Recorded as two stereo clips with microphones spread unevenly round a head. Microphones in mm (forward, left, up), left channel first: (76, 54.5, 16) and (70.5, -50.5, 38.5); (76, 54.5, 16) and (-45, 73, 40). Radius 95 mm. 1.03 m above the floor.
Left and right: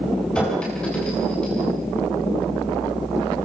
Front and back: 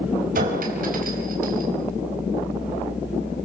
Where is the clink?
175° left, 4 m.